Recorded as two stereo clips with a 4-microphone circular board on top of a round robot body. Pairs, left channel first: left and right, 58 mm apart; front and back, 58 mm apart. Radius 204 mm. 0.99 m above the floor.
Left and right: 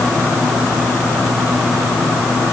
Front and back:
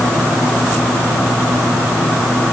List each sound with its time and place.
Only background noise.